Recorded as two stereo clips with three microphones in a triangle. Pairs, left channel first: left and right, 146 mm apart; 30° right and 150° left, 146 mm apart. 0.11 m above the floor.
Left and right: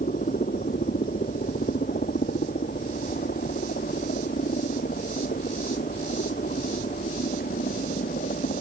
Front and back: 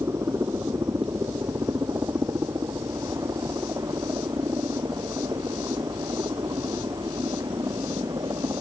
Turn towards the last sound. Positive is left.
turn(degrees=85)